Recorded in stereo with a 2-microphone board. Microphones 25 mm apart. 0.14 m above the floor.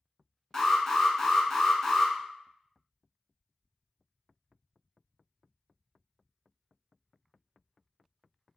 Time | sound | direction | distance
0.5 | an alarm | 15° left (ahead or behind) | 0.7 m